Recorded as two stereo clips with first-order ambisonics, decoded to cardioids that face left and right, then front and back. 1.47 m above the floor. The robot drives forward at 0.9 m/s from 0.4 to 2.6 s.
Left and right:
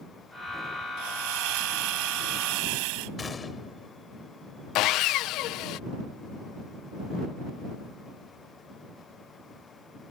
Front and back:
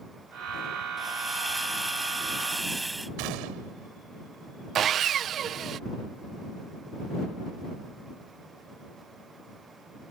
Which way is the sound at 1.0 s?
90° right.